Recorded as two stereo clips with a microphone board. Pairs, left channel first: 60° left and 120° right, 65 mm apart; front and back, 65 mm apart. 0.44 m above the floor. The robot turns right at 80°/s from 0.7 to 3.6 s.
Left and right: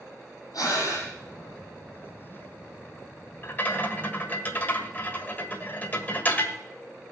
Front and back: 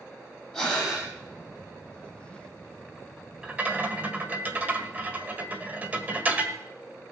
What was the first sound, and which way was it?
Breathing, 75° left.